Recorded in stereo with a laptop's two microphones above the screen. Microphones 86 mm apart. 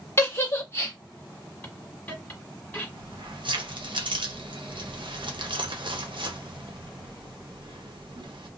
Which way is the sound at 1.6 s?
20° left (ahead or behind).